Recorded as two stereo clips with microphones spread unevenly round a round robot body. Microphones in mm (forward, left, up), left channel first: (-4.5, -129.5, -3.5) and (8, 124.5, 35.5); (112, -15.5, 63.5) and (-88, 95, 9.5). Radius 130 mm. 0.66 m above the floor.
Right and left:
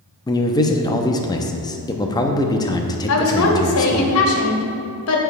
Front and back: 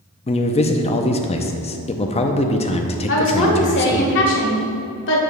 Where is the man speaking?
85° right, 0.6 m.